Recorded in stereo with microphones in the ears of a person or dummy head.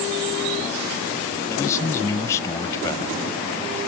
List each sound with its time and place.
1.5 s a man speaking: 15° left (ahead or behind)